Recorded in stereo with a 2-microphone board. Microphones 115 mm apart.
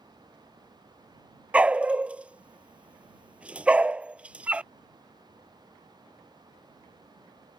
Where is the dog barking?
10° right (ahead or behind).